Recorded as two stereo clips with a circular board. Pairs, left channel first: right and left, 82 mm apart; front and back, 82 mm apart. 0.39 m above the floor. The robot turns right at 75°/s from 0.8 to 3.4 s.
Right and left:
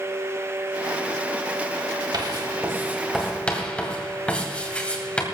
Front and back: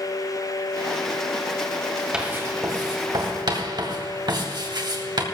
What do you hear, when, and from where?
2.1 s writing: 100° left, 2.5 m; by 5.2 s 165° right, 2.5 m